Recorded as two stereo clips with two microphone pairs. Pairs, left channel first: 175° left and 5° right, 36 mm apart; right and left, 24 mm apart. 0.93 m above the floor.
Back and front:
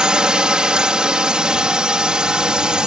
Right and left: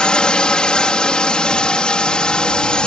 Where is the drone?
65° right.